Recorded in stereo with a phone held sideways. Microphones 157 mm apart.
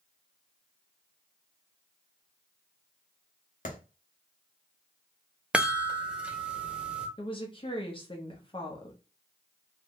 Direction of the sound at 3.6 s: 60° left (ahead or behind).